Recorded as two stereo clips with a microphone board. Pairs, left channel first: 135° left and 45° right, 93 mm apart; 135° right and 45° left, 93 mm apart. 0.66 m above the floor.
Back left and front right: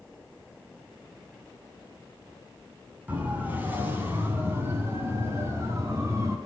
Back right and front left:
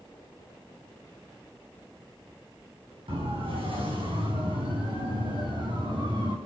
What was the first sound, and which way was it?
A siren, 30° left.